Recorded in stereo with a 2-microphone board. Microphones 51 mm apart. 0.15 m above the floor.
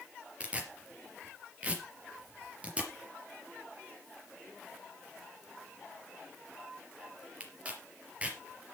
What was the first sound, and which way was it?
Tearing paper, 25° right (ahead or behind).